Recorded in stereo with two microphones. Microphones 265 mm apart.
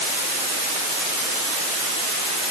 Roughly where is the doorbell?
No doorbell in this recording.